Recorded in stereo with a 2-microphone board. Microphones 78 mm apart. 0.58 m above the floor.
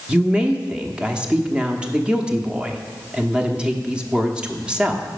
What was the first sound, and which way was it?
A woman speaking, 15° right (ahead or behind).